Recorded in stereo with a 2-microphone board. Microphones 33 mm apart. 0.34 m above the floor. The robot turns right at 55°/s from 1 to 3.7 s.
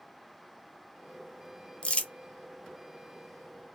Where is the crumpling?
30° left (ahead or behind), 0.9 m; by 2.1 s 40° left (ahead or behind), 0.9 m.